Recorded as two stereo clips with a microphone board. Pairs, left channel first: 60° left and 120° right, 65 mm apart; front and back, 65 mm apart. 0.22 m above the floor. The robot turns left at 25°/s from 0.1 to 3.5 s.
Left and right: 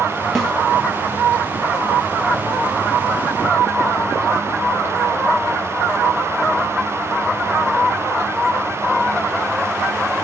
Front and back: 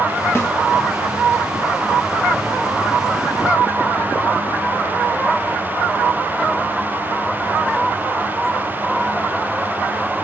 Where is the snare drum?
25° right, 1.1 m; by 0.5 s 30° right, 1.1 m.